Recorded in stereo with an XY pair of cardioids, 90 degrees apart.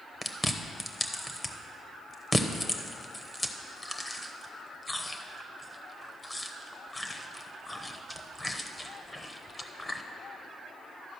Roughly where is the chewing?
Ahead.